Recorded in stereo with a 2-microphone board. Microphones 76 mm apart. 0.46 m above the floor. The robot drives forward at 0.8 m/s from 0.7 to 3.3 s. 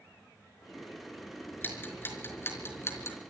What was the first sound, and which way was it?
Ticking, 25° left (ahead or behind).